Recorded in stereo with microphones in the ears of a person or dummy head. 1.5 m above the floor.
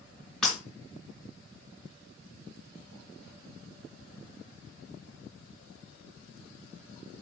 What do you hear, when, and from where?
0.4 s breaking glass: 5° left (ahead or behind), 3.5 m